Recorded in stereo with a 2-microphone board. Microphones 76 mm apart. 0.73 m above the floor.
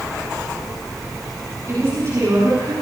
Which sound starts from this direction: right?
A woman speaking, at 1.7 s.